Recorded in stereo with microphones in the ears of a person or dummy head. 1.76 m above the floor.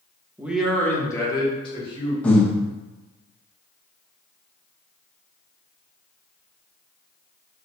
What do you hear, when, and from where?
0.4 s a man speaking: 15° right (ahead or behind), 0.6 m; by 2.1 s 30° left (ahead or behind), 1.9 m
2.2 s breathing: 10° left (ahead or behind), 0.7 m